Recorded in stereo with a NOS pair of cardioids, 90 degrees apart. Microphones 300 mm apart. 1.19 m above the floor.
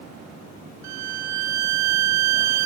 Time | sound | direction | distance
0.8 | a violin | 65° right | 0.6 m